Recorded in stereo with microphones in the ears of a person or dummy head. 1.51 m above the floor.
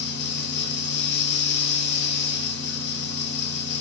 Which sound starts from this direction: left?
A fan, at 0.0 s.